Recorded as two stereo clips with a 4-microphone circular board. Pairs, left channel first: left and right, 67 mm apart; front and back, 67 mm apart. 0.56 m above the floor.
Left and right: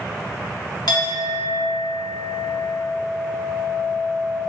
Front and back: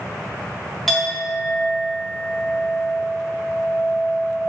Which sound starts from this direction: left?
A clink, at 0.9 s.